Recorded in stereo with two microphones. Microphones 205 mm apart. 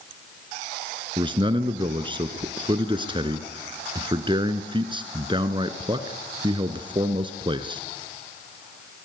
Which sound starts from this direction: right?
A man speaking, at 1.2 s.